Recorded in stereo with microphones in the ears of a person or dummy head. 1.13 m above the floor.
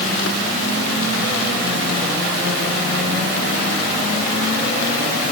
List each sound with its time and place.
Only background noise.